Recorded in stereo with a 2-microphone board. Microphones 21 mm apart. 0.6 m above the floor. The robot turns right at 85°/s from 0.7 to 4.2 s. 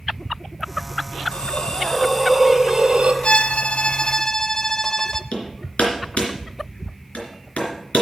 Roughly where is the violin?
Ahead left.